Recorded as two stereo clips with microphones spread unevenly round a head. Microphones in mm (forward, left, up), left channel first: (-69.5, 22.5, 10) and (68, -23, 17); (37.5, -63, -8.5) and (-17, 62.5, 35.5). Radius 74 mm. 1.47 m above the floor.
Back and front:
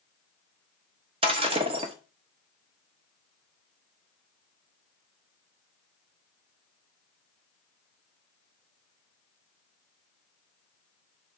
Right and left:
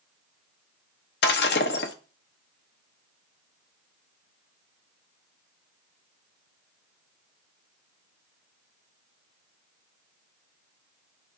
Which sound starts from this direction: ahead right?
Breaking glass, at 1.2 s.